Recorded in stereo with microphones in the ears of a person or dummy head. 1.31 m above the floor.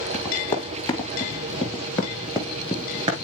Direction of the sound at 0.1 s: 30° left (ahead or behind).